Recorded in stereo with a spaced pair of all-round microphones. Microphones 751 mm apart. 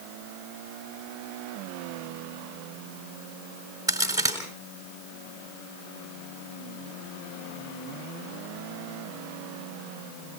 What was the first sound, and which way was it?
A crack, 5° right (ahead or behind).